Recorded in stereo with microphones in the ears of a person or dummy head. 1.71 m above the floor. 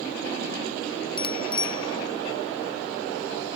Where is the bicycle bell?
35° left (ahead or behind); by 3.6 s 30° left (ahead or behind).